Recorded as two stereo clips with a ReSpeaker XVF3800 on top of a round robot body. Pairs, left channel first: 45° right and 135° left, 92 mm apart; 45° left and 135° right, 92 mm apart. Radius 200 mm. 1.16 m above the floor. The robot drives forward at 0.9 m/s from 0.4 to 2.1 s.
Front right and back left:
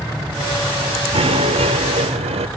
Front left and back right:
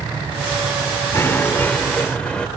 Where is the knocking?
110° left; by 2.5 s 125° left.